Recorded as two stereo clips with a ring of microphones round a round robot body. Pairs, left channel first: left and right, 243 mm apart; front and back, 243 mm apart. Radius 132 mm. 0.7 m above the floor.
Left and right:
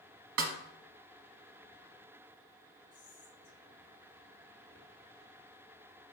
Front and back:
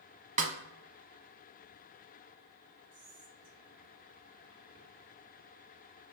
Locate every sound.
0.4 s a snare drum: 125° right, 1.0 m
2.9 s whispering: 160° left, 1.9 m